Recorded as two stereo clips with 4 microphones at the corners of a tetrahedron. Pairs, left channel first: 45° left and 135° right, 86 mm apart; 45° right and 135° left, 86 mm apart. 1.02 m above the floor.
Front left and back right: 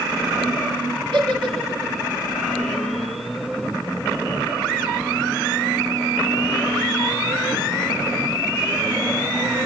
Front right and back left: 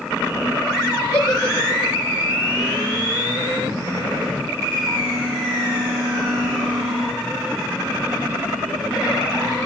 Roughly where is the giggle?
Right.